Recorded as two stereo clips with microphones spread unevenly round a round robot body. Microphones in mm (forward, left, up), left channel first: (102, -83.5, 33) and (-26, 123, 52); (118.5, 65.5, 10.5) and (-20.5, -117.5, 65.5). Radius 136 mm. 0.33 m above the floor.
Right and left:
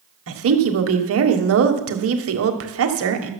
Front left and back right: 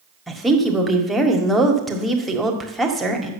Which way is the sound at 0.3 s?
135° left.